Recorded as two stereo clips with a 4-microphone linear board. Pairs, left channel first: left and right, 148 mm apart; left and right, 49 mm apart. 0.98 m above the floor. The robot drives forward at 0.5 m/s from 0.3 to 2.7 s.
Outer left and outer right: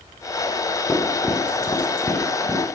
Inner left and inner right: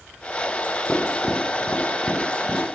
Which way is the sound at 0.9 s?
10° left (ahead or behind).